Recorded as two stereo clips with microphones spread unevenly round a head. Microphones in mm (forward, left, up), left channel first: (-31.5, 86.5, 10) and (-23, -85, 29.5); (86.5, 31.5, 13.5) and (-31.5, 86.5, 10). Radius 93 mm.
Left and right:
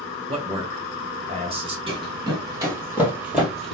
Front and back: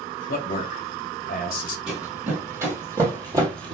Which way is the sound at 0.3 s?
25° right.